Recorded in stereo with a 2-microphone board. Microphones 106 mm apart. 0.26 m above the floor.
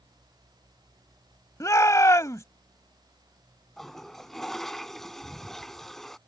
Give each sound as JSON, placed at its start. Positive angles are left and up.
{"t": 1.6, "sound": "a shout", "side_deg": 30}
{"t": 3.8, "sound": "a toilet flushing", "side_deg": 5}